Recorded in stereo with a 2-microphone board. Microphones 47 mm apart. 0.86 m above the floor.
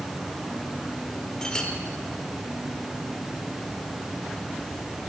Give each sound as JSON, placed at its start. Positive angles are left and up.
{"t": 1.4, "sound": "a clink", "side_deg": 15, "distance_m": 1.7}